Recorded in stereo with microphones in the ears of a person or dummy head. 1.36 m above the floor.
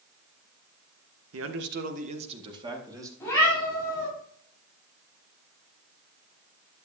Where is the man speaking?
70° right (ahead or behind), 1.0 m; by 3.1 s 15° right (ahead or behind), 2.5 m.